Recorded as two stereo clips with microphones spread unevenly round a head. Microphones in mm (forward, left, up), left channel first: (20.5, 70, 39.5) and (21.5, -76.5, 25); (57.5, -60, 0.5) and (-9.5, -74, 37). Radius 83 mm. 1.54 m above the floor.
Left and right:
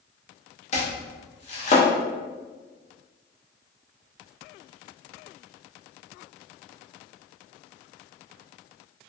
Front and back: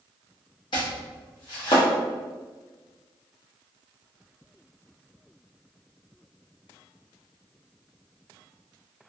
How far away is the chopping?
About 0.5 m.